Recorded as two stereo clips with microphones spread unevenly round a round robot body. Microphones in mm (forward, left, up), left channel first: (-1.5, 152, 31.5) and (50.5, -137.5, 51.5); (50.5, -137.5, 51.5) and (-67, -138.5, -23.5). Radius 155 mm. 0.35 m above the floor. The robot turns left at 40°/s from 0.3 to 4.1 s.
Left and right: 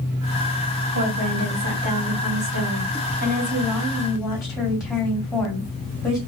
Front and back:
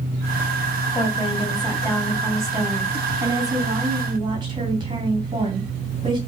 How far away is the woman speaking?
About 2.5 m.